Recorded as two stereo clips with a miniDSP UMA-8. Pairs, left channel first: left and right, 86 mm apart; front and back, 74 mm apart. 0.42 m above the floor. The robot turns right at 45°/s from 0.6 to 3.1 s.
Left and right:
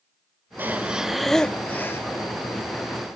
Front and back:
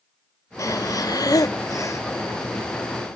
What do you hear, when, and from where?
0.6 s breathing: 30° right, 0.7 m; by 2.0 s 35° left, 0.7 m